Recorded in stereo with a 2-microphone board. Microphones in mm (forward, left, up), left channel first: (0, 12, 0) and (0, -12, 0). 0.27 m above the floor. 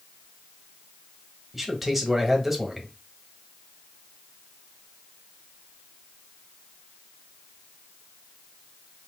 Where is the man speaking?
10° right (ahead or behind), 1.1 m.